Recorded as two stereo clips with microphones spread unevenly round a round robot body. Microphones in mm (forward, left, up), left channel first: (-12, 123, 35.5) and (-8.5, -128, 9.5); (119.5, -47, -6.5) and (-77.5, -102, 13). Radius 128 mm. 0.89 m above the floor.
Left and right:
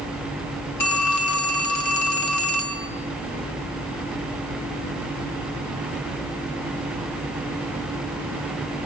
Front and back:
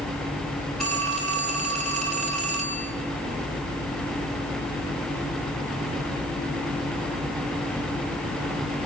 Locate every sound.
0.8 s a phone ringing: 105° left, 3 m